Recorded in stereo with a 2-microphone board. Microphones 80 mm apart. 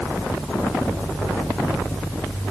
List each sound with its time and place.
Only background noise.